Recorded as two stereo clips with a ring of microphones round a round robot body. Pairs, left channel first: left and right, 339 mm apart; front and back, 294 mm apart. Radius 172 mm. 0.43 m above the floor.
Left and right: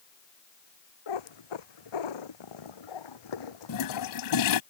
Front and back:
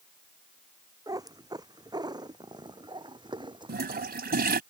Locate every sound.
1.1 s a cat meowing: 100° left; by 4.6 s 105° left
3.7 s a toilet flushing: 120° left